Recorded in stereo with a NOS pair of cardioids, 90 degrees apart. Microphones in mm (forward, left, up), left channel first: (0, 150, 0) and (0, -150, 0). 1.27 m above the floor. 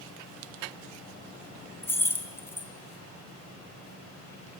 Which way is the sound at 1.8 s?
10° left.